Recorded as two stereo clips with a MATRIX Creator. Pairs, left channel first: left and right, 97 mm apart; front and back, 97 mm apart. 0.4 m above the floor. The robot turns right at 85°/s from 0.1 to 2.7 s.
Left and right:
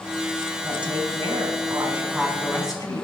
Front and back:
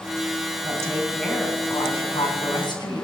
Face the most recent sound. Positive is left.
turn(degrees=40)